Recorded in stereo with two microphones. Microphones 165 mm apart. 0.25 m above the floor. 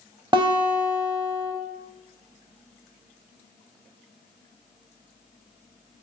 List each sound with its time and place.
0.3 s a guitar: 30° right (ahead or behind), 0.5 m